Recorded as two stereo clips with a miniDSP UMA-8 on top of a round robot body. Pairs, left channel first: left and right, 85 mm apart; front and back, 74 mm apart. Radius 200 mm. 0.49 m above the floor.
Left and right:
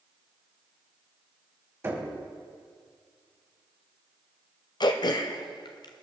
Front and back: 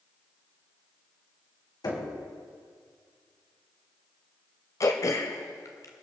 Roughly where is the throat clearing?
Ahead left.